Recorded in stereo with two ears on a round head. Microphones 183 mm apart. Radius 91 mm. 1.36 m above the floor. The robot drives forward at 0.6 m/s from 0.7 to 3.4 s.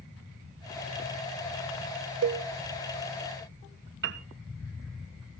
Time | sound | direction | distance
2.2 | a cowbell | 60° right (ahead or behind) | 0.9 m
4.0 | a piano | 55° right (ahead or behind) | 1.2 m